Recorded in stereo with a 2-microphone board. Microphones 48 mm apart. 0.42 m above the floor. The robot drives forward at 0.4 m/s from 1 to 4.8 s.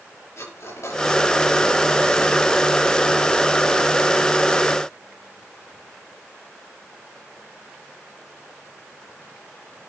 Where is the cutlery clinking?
70° left (ahead or behind), 5 m.